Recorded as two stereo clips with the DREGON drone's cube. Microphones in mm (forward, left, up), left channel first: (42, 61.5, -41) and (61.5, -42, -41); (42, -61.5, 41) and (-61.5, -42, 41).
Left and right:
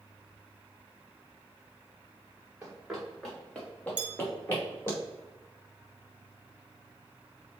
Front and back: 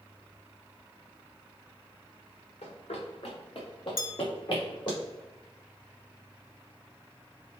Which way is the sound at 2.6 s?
5° right.